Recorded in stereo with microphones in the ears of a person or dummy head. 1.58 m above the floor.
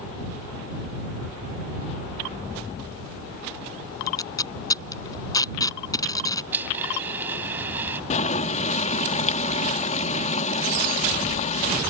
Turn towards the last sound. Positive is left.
turn(degrees=40)  # may be behind; listen again after turning